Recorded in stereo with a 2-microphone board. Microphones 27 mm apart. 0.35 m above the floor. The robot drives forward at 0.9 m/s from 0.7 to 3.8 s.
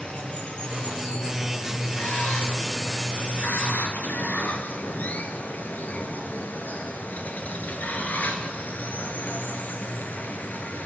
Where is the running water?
45° left (ahead or behind), 3 m; by 10.9 s 80° left, 2.5 m.